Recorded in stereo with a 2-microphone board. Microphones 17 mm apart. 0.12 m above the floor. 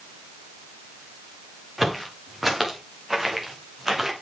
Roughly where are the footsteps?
Centre.